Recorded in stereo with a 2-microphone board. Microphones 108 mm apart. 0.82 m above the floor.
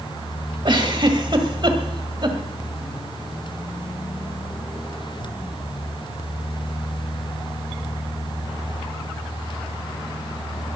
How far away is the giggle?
About 1.7 m.